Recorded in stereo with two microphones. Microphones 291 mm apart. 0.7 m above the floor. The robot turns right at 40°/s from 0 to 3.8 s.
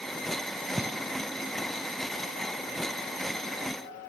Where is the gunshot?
10° right (ahead or behind), 1.1 m; by 1.1 s 5° left (ahead or behind), 1.1 m.